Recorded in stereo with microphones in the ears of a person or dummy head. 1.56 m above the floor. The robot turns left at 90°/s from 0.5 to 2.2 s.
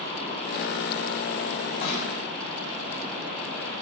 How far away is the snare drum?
About 8 m.